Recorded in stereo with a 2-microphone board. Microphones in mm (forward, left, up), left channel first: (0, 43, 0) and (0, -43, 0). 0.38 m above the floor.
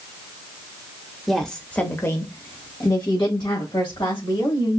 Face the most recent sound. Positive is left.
turn(degrees=65)  # may be behind; listen again after turning